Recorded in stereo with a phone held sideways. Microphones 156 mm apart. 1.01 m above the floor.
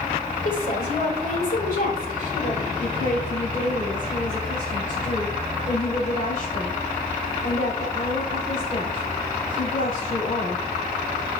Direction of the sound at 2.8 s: 55° left (ahead or behind).